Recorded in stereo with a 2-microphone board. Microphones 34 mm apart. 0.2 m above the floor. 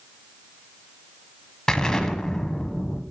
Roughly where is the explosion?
Left.